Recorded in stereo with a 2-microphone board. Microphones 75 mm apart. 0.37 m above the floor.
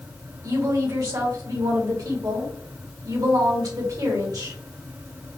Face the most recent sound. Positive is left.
turn(degrees=-55)  # may be behind; listen again after turning